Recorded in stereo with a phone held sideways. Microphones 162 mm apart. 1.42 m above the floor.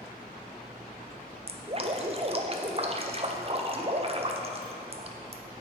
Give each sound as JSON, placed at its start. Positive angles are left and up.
{"t": 1.5, "sound": "dripping", "side_deg": -40, "distance_m": 0.5}